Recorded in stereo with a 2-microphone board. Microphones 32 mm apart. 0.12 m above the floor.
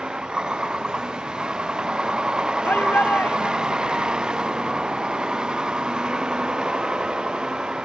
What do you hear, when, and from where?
0.0 s a vehicle: 25° right (ahead or behind)
2.6 s a shout: 75° left (ahead or behind)